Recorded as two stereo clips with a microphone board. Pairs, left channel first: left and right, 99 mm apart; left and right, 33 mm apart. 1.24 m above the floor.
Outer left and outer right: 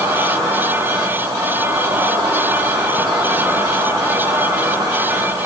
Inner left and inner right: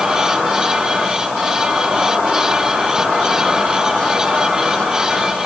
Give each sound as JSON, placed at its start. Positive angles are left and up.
{"t": 0.0, "sound": "an insect", "side_deg": -45, "distance_m": 2.0}